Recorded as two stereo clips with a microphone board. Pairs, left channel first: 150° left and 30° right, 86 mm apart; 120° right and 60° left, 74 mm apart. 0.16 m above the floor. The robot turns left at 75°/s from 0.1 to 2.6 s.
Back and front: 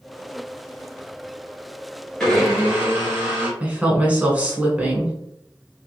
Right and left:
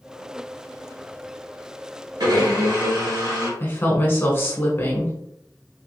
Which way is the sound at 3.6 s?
90° right.